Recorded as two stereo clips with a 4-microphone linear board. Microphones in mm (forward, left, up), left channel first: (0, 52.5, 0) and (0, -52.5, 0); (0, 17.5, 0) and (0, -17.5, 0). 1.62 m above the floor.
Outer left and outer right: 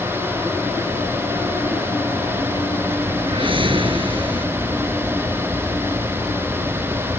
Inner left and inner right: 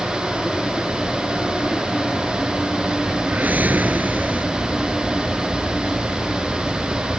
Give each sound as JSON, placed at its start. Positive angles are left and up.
{"t": 3.2, "sound": "a whoosh", "side_deg": -55}